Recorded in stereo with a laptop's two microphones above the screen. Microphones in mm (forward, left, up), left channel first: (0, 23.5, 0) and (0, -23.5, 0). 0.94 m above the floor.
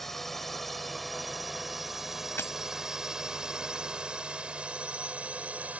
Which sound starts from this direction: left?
Breaking glass, at 2.4 s.